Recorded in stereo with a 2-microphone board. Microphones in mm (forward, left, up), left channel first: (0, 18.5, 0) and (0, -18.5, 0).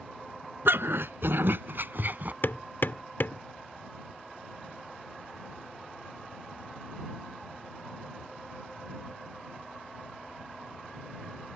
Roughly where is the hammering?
Left.